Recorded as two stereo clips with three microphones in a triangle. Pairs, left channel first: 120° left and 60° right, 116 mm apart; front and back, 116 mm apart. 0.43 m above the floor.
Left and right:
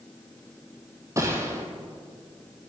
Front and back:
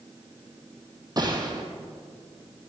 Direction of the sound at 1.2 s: 125° right.